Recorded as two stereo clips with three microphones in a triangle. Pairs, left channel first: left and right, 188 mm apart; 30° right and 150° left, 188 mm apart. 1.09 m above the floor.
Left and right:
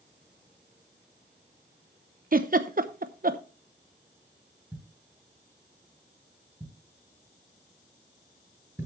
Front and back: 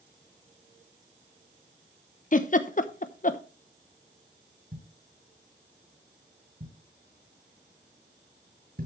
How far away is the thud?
About 7.5 m.